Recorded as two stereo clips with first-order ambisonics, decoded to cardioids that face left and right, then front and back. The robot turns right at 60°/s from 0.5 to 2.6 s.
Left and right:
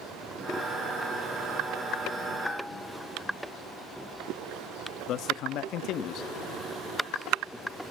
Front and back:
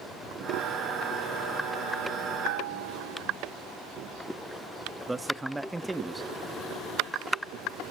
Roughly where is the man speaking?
Left.